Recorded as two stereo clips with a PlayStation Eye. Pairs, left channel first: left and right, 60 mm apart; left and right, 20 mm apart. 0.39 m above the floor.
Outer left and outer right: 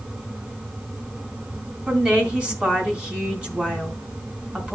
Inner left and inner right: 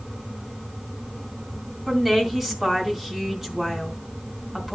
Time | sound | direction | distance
1.9 | a woman speaking | 20° right (ahead or behind) | 3.5 m